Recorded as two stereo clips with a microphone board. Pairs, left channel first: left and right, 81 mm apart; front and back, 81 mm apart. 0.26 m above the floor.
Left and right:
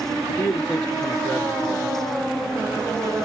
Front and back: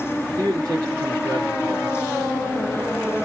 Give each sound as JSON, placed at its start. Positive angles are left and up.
{"t": 0.4, "sound": "a man speaking", "azimuth_deg": 145, "distance_m": 3.5}